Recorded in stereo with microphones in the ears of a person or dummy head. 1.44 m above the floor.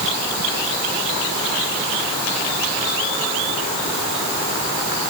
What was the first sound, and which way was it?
Only background noise.